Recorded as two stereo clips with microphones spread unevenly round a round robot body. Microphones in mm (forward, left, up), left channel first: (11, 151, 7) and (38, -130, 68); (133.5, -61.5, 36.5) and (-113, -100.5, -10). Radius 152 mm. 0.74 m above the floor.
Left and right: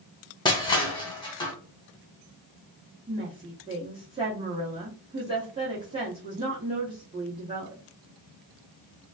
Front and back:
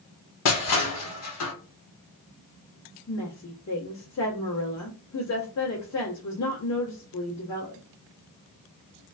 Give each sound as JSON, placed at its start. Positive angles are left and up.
{"t": 0.5, "sound": "crushing", "azimuth_deg": 15, "distance_m": 1.3}
{"t": 3.1, "sound": "a woman speaking", "azimuth_deg": -5, "distance_m": 1.6}